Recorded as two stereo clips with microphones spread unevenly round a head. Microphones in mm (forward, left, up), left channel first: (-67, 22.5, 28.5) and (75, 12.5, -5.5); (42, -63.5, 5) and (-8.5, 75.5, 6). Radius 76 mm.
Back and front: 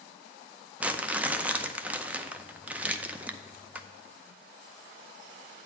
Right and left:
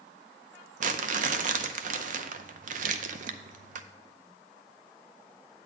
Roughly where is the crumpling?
Left.